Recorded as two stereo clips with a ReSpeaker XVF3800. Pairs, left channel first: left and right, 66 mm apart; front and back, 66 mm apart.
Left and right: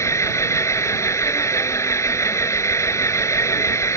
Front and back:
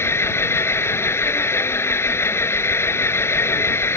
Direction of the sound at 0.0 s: 50° left.